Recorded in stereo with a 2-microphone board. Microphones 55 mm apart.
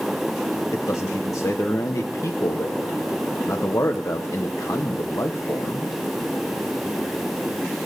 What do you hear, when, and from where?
0.7 s a man speaking: 65° left (ahead or behind), 0.9 m